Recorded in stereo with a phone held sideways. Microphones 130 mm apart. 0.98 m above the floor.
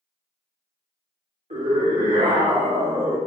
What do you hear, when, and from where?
1.5 s a scream: 75° right (ahead or behind), 3 m; by 3.2 s 45° right (ahead or behind), 3 m